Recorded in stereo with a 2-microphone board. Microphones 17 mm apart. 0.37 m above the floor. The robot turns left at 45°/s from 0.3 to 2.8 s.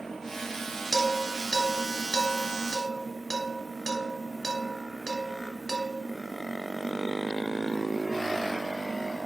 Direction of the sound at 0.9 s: 35° left (ahead or behind).